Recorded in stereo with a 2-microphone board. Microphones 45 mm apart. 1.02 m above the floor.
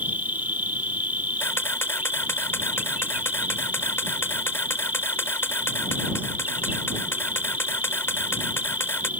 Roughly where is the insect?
Right.